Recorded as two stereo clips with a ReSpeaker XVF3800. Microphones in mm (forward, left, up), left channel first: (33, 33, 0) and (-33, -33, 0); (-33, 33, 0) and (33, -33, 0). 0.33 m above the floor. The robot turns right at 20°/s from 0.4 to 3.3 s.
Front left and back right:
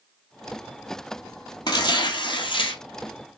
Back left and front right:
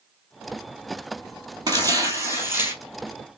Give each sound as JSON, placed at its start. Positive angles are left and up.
{"t": 1.7, "sound": "tearing paper", "azimuth_deg": 5, "distance_m": 1.4}